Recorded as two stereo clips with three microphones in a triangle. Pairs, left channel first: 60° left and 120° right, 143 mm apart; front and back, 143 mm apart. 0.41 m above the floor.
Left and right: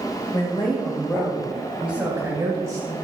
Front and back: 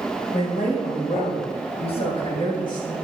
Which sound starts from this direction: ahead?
A woman speaking, at 0.3 s.